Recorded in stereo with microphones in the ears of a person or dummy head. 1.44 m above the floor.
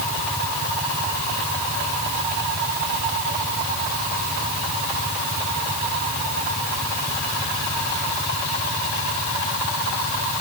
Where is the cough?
I don't hear a cough.